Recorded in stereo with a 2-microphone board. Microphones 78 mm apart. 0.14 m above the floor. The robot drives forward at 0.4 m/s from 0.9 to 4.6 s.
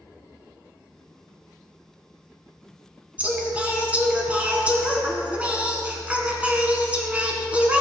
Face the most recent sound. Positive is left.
turn(degrees=-20)  # may be behind; listen again after turning